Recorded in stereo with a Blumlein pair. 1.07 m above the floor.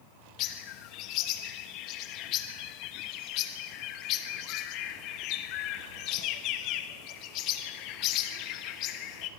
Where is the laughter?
I don't hear laughter.